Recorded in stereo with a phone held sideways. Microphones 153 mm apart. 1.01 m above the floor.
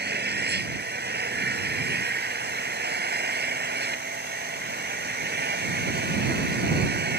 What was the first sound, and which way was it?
An engine running, 85° right.